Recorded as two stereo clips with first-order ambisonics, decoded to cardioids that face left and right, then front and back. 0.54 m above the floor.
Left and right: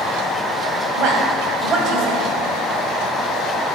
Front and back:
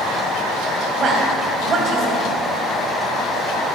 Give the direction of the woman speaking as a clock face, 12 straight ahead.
4 o'clock.